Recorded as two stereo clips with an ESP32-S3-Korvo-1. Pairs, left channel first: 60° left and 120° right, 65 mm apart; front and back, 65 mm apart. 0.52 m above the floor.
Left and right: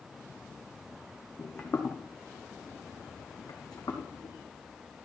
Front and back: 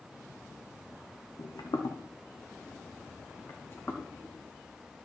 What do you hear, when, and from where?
1.4 s footsteps: 5° right, 1.9 m; by 4.3 s 60° left, 2.5 m